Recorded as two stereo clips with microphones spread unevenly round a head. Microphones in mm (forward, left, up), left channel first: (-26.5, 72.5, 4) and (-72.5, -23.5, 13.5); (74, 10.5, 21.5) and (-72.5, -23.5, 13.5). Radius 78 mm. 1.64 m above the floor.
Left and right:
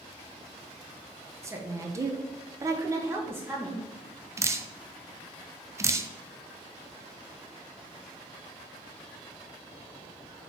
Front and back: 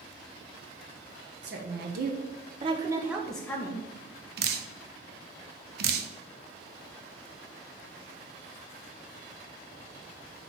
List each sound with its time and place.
1.4 s a woman speaking: 175° right, 1.0 m; by 3.9 s 40° right, 0.7 m
4.4 s dripping: straight behind, 0.5 m